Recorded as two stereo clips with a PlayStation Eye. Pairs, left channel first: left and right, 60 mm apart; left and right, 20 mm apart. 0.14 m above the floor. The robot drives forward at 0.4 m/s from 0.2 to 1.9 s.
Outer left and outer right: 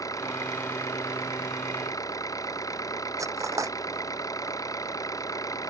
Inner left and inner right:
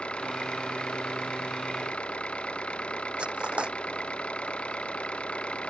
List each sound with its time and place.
0.0 s an engine running: 70° left (ahead or behind)
3.2 s cutlery clinking: 65° right (ahead or behind)